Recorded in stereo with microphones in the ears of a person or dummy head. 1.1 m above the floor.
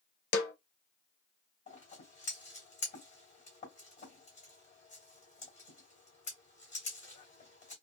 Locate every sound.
0.3 s a snare drum: 65° left (ahead or behind), 0.8 m
1.7 s scissors: 40° left (ahead or behind), 2 m